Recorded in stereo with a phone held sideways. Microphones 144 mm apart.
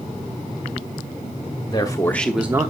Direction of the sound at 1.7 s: 30° left (ahead or behind).